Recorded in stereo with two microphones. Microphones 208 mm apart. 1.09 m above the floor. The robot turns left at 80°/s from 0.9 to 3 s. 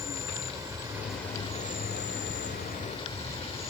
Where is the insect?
160° right; by 3.7 s 30° left.